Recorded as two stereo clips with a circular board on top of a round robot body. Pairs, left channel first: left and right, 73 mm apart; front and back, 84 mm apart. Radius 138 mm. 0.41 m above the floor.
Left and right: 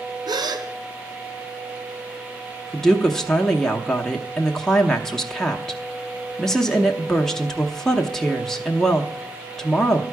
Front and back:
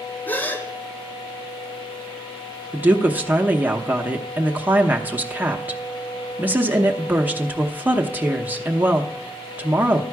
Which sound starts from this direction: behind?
A woman speaking, at 2.7 s.